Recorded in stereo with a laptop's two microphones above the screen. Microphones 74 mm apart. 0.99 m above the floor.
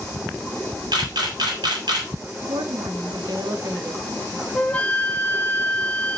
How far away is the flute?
About 0.9 m.